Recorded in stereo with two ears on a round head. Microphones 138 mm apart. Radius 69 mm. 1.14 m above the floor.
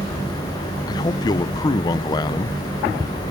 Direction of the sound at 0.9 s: 25° left (ahead or behind).